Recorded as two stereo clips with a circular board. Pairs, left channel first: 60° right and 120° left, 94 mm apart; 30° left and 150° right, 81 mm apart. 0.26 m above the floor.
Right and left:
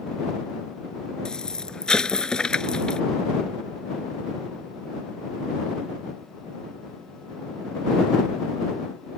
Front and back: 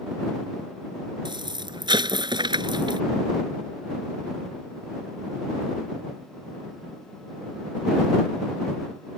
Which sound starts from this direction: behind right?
An explosion, at 1.2 s.